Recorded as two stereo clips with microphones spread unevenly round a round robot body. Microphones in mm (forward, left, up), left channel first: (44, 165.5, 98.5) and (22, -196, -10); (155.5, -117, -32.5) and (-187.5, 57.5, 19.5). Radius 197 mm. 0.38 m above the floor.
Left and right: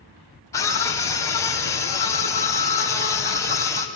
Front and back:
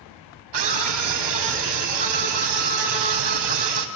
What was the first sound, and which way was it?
A scream, 175° left.